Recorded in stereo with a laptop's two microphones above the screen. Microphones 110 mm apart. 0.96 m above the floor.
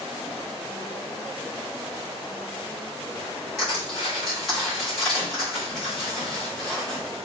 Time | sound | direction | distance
3.6 | crushing | 5° left (ahead or behind) | 1.3 m